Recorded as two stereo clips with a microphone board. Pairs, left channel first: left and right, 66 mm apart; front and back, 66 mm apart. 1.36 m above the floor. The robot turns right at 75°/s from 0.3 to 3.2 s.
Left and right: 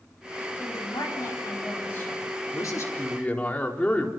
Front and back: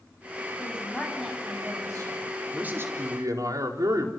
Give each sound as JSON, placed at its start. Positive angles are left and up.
{"t": 0.6, "sound": "a woman speaking", "azimuth_deg": 50, "distance_m": 8.5}
{"t": 2.5, "sound": "a man speaking", "azimuth_deg": 110, "distance_m": 4.0}